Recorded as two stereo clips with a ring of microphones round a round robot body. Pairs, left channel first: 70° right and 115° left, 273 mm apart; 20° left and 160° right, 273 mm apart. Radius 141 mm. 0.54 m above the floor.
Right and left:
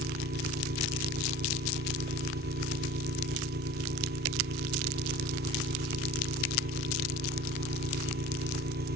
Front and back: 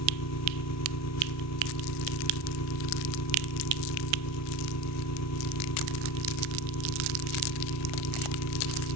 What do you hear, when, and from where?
0.0 s an engine running: 55° left